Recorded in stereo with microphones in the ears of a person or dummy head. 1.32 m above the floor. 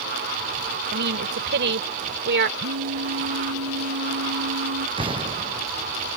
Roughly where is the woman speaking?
Right.